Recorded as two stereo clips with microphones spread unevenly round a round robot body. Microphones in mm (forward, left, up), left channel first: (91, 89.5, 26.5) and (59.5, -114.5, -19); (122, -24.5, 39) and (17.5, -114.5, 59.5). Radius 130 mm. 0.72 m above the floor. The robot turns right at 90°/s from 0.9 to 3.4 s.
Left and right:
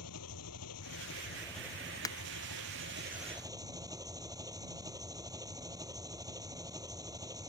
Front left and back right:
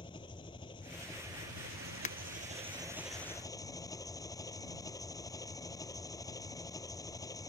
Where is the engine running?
110° left; by 7.5 s 25° right.